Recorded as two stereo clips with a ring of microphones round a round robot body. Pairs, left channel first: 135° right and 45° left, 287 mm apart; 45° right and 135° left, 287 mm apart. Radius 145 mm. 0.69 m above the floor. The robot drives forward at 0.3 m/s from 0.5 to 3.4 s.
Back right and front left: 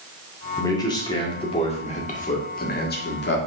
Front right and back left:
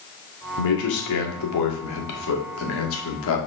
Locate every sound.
0.6 s a man speaking: 55° right, 1.9 m; by 3.4 s 85° right, 1.7 m